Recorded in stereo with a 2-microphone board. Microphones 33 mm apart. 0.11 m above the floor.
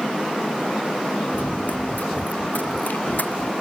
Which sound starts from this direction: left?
Running footsteps, at 1.3 s.